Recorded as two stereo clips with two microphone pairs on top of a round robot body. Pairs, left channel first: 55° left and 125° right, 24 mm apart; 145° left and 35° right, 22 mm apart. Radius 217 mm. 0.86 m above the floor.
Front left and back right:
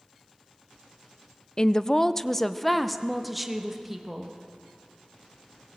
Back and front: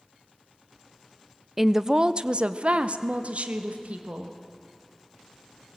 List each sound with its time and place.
1.6 s a woman speaking: 45° left, 0.8 m; by 4.4 s 45° right, 1.8 m